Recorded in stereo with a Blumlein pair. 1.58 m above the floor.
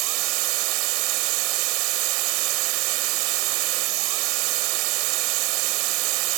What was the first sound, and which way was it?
A machine running, 40° right.